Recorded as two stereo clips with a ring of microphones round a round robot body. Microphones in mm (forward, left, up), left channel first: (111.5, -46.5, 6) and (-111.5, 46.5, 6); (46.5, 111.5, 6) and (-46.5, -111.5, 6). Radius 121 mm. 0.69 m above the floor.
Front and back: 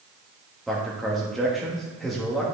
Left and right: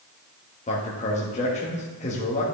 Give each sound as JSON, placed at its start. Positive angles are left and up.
{"t": 0.7, "sound": "a man speaking", "azimuth_deg": 65, "distance_m": 1.2}